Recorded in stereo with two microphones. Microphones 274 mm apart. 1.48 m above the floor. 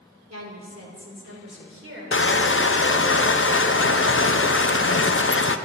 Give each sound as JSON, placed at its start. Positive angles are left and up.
{"t": 0.3, "sound": "a woman speaking", "side_deg": -70, "distance_m": 3.5}
{"t": 2.1, "sound": "crushing", "side_deg": 45, "distance_m": 0.6}